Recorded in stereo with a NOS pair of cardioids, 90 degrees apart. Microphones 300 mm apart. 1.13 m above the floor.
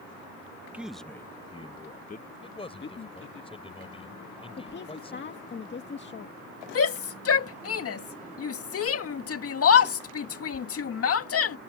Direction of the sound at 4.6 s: 40° left.